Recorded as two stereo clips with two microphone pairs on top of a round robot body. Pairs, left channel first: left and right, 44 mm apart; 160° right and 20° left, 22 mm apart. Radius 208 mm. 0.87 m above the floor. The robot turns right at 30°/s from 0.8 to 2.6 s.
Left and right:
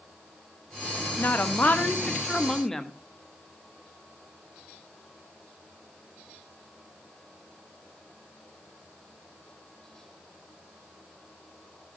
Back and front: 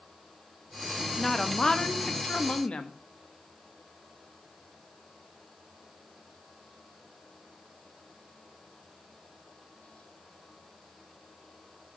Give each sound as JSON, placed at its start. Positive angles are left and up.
{"t": 1.2, "sound": "a woman speaking", "azimuth_deg": 125, "distance_m": 1.6}